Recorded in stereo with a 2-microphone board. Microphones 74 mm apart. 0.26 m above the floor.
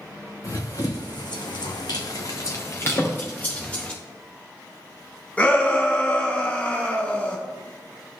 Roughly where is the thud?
Left.